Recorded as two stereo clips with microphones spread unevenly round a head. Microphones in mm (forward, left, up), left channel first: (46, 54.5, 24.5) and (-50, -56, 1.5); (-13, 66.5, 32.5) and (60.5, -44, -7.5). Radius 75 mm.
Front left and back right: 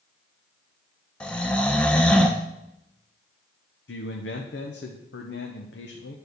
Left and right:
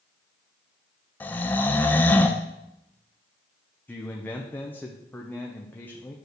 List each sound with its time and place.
1.2 s snoring: 105° left, 0.7 m
3.9 s a man speaking: 50° left, 1.0 m